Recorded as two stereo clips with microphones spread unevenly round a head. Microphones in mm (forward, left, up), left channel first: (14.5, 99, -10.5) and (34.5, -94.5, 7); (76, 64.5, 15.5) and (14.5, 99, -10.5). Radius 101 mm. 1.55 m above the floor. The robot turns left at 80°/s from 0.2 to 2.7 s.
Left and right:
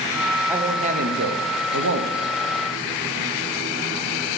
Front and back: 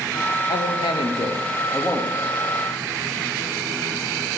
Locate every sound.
0.5 s a man speaking: straight ahead, 0.7 m; by 2.2 s 135° right, 0.7 m